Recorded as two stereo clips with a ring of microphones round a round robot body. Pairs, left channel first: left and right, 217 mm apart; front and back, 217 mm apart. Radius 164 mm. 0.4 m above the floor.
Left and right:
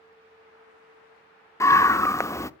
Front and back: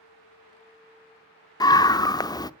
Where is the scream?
35° left, 0.8 m.